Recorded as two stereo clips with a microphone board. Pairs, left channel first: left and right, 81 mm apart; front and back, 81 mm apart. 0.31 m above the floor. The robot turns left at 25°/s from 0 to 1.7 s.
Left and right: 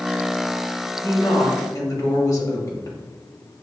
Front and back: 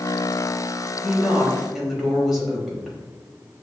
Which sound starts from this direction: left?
A woman speaking, at 1.0 s.